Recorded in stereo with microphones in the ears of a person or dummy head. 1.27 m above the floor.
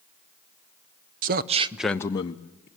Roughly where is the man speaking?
Right.